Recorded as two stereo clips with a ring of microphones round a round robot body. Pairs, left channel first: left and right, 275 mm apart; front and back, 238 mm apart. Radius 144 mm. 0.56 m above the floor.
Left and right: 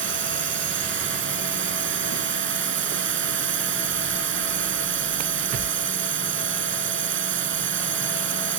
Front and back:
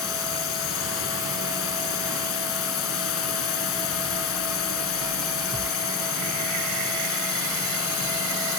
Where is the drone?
40° right.